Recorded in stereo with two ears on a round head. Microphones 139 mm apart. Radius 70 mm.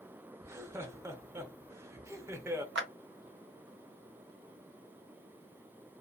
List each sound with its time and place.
0.4 s laughter: 20° right (ahead or behind), 0.7 m
2.8 s a clap: 80° right, 0.7 m